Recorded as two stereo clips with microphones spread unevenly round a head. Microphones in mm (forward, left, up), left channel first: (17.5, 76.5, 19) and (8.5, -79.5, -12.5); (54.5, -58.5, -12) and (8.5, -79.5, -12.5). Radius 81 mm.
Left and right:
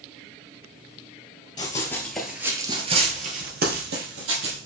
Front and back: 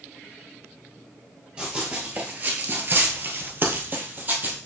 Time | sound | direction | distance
1.6 | running footsteps | 130° left | 1.7 m